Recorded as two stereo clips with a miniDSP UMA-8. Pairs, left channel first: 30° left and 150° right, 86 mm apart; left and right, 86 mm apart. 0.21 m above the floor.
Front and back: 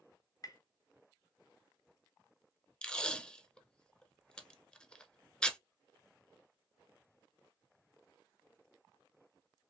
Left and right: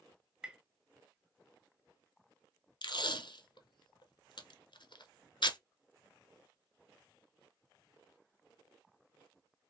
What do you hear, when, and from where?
0.4 s tapping: 10° right, 0.6 m
2.8 s tape being pulled: 110° left, 0.6 m